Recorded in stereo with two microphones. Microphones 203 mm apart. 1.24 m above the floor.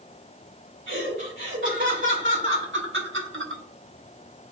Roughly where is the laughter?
Right.